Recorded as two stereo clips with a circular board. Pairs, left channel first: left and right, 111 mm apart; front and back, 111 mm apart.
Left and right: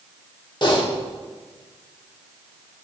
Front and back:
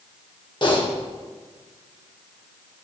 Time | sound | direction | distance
0.6 | typing on a keyboard | 45° left | 1.1 m